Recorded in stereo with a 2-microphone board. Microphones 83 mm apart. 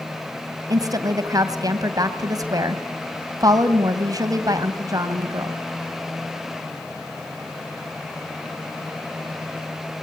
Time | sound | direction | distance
0.7 | a woman speaking | 45° right (ahead or behind) | 2.5 m